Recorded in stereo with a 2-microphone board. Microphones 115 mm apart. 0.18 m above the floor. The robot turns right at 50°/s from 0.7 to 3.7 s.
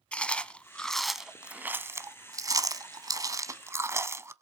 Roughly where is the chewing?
Centre.